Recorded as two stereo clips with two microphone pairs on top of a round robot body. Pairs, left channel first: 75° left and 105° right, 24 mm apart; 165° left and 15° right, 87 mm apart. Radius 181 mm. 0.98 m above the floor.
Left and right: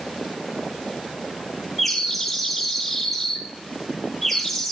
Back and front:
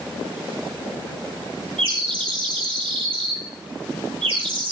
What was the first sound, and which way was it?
A bird, 20° right.